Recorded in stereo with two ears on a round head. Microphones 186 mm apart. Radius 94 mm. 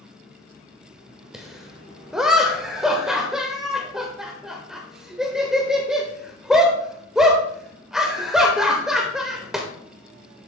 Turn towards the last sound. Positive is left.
turn(degrees=-5)  # may be behind; listen again after turning